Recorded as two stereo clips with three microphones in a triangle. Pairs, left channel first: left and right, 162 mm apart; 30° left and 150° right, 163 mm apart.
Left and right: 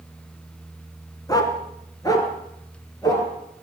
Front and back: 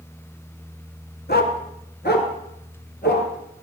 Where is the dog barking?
25° left, 1.6 m; by 3.3 s 20° left, 3.5 m.